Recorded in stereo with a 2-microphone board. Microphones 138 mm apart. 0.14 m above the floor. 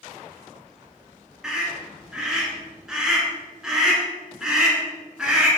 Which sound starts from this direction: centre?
A scream, at 1.4 s.